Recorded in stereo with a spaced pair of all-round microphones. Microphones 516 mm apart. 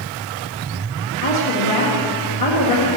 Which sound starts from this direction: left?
A woman speaking, at 1.2 s.